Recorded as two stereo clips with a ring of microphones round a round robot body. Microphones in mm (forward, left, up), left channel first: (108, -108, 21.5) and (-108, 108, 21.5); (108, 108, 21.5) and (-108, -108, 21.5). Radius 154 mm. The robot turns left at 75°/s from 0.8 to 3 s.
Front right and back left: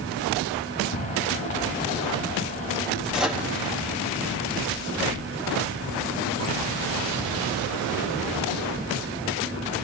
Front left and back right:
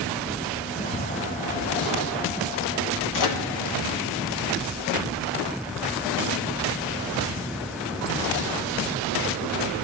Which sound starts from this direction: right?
Ticking, at 0.9 s.